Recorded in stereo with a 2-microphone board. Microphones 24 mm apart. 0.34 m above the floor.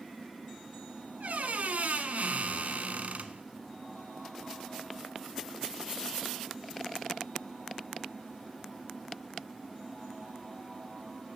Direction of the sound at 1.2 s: 85° right.